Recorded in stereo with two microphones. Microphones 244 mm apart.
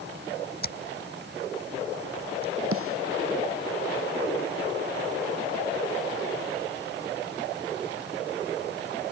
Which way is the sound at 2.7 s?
70° right (ahead or behind).